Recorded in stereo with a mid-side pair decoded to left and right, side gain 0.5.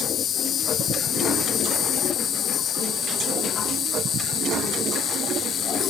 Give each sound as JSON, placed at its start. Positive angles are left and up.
{"t": 0.0, "sound": "an insect", "azimuth_deg": 55}